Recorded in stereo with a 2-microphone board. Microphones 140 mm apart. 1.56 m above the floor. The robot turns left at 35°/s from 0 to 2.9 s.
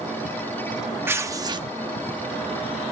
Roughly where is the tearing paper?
Centre.